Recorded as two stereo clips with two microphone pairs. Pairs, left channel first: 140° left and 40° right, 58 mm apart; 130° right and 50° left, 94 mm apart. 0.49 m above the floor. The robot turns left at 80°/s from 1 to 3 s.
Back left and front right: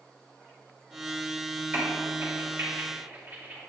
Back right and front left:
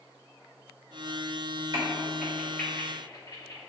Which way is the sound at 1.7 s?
15° left.